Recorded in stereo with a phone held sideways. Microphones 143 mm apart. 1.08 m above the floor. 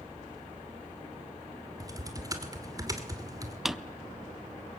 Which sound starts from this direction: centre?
A drawer, at 3.6 s.